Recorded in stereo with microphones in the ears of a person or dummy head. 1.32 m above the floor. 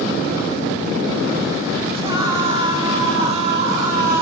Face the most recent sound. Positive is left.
turn(degrees=-45)  # may be behind; listen again after turning